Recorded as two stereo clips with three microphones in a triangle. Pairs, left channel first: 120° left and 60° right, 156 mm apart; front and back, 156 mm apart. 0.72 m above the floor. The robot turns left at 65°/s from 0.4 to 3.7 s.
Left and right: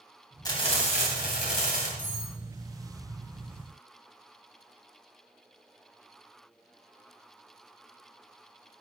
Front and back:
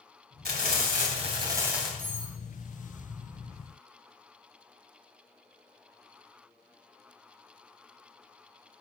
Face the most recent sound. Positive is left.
turn(degrees=-65)